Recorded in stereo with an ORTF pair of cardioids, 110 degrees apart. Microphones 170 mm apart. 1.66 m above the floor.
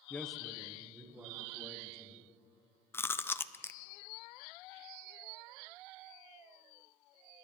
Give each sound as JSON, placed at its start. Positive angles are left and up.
{"t": 0.1, "sound": "a man speaking", "azimuth_deg": 10, "distance_m": 0.7}
{"t": 2.9, "sound": "chewing", "azimuth_deg": 15, "distance_m": 0.6}